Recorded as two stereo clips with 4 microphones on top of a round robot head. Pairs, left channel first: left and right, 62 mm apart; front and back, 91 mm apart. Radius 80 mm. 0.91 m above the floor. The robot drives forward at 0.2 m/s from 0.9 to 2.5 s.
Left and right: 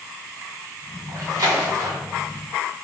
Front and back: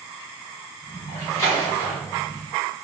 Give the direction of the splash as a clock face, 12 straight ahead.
2 o'clock.